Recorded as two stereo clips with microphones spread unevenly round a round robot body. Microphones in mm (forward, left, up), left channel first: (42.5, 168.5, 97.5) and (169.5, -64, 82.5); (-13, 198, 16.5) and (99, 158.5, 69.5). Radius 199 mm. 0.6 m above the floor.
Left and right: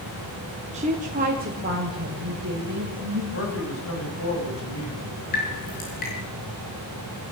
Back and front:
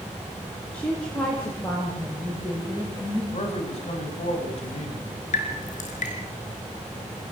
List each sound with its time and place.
0.7 s a woman speaking: 125° right, 1.5 m; by 3.2 s 115° right, 4 m
3.3 s a man speaking: 165° left, 5 m
5.3 s dripping: 175° right, 4.5 m